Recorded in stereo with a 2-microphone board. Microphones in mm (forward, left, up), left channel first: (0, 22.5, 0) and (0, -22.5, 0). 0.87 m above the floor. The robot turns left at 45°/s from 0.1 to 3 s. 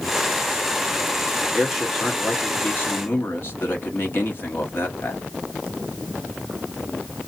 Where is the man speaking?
170° right, 1.3 m; by 5.2 s 125° left, 1.3 m.